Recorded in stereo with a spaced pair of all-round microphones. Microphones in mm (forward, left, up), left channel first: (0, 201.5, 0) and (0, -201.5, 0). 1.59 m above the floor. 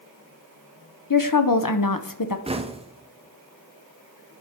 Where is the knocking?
15° right (ahead or behind), 0.5 m.